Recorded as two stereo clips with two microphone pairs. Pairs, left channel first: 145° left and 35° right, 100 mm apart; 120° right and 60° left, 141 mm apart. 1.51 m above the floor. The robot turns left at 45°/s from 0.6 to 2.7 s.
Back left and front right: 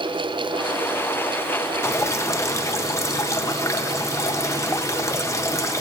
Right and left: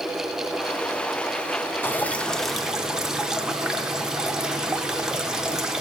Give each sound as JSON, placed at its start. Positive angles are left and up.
{"t": 1.8, "sound": "dripping", "azimuth_deg": 170, "distance_m": 0.5}